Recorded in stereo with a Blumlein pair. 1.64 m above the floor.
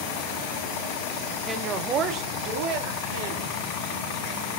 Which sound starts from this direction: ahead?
A woman speaking, at 1.5 s.